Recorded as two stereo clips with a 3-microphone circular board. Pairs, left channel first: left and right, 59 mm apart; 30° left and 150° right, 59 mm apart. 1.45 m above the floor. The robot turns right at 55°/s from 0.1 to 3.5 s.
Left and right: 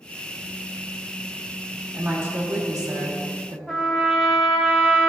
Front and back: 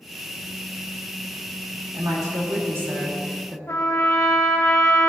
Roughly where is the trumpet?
Ahead.